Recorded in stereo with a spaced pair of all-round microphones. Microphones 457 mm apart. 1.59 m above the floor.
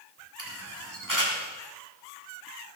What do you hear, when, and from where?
0.4 s a camera shutter: 40° right (ahead or behind), 3.5 m